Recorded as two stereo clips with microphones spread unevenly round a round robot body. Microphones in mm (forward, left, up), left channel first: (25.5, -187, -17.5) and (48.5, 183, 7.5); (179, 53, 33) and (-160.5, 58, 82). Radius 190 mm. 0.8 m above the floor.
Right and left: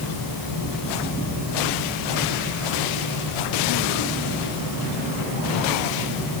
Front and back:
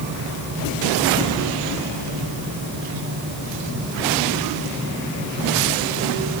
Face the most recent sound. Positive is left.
No sound to turn to.